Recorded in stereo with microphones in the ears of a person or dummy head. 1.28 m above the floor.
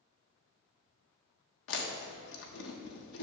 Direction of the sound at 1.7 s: 70° left (ahead or behind).